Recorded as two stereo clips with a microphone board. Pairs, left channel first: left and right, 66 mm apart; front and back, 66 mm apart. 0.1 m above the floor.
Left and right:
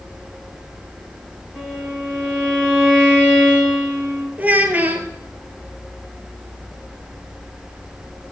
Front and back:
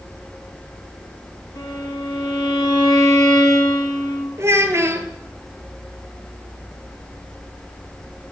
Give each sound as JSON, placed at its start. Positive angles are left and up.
{"t": 1.6, "sound": "a violin", "azimuth_deg": 15, "distance_m": 7.0}
{"t": 4.4, "sound": "a child speaking", "azimuth_deg": -150, "distance_m": 1.1}